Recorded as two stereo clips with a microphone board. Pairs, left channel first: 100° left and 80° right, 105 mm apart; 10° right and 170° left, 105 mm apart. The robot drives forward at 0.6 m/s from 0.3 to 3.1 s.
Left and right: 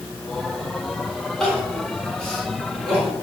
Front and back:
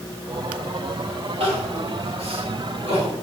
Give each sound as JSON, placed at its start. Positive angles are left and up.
{"t": 1.4, "sound": "crying", "azimuth_deg": -175, "distance_m": 3.5}